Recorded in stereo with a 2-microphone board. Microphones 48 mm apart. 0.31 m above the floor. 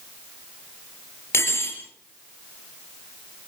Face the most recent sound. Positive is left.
turn(degrees=60)  # may be behind; listen again after turning